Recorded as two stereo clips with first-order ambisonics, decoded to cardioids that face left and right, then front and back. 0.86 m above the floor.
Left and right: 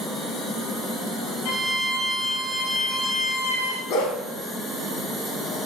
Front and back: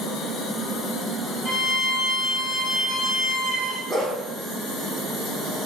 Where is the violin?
75° left, 3.5 m.